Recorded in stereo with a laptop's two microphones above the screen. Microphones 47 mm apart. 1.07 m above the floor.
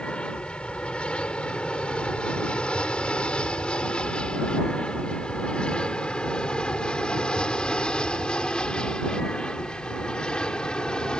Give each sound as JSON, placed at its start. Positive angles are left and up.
{"t": 0.0, "sound": "an aircraft", "side_deg": 25}